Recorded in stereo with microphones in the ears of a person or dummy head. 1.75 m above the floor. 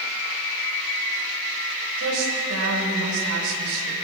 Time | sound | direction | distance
2.0 | a woman speaking | 80° right | 7.5 m